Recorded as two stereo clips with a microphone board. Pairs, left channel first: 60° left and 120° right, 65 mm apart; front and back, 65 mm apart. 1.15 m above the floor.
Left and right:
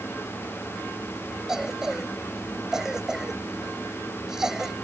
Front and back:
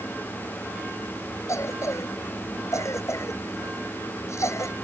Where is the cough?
40° right.